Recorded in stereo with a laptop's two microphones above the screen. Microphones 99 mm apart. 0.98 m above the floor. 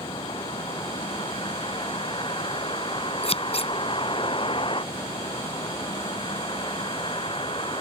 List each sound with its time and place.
0.0 s a vehicle: 60° left (ahead or behind)
3.2 s scissors: 85° left